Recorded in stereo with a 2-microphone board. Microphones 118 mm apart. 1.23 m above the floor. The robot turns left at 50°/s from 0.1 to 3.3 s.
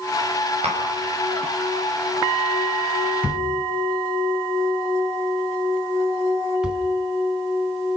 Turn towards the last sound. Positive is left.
turn(degrees=-10)  # may be behind; listen again after turning